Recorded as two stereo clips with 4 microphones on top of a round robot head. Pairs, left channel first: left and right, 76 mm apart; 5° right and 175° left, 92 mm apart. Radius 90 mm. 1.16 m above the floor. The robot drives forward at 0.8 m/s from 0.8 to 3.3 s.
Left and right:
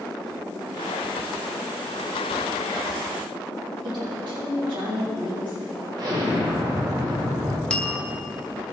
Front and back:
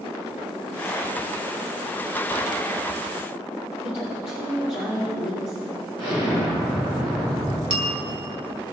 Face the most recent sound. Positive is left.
turn(degrees=165)